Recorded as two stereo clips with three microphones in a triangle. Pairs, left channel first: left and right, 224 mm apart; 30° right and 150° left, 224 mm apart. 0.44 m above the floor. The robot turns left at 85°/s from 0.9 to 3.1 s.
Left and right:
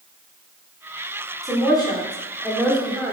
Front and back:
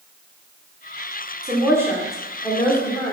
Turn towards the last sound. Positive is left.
turn(degrees=-15)